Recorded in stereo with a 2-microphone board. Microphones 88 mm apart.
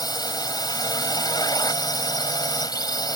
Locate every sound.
0.0 s a drone: 50° left (ahead or behind)